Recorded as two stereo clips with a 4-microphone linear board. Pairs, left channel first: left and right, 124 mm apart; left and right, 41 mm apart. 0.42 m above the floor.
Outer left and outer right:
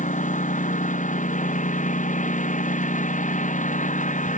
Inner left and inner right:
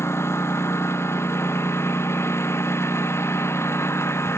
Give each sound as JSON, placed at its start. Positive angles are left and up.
{"t": 0.0, "sound": "a lawn mower", "side_deg": 90}